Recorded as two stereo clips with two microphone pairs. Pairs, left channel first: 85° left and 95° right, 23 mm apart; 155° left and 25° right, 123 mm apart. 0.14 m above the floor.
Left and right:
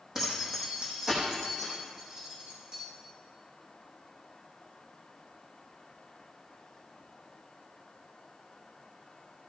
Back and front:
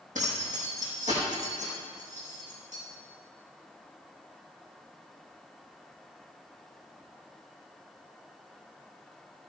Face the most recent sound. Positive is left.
turn(degrees=-40)